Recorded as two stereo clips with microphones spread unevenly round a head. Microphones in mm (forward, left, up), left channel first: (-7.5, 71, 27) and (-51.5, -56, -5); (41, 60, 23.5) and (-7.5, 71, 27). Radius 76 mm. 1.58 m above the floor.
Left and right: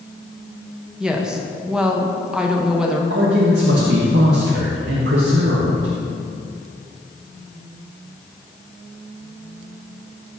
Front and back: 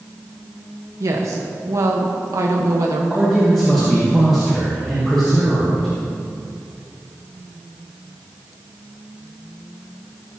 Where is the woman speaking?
160° left, 1.2 m.